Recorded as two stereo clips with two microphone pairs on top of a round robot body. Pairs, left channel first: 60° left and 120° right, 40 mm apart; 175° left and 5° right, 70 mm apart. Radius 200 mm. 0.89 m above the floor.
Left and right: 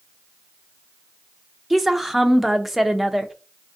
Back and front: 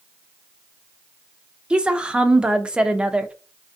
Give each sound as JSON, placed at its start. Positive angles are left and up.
{"t": 1.7, "sound": "a woman speaking", "azimuth_deg": -65, "distance_m": 0.7}